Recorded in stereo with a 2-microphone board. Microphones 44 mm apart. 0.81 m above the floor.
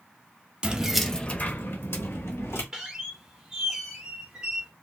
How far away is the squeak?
About 1.3 m.